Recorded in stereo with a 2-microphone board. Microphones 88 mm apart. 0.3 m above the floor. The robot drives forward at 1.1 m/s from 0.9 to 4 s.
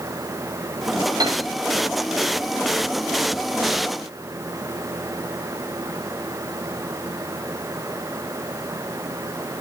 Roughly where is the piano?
Right.